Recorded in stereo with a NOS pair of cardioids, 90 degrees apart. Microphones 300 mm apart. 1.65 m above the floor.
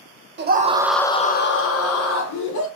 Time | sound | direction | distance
0.4 | a scream | 40° right | 0.8 m